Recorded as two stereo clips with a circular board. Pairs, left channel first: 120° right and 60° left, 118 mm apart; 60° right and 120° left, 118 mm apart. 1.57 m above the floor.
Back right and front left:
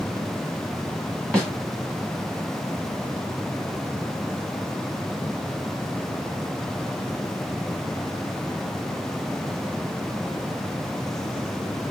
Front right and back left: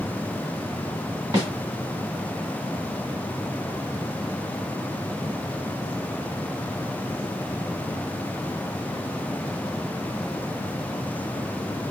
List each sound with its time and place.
1.3 s a snare drum: 160° left, 1.8 m